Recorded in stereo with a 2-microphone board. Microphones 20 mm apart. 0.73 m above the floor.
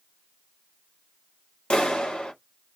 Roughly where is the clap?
Left.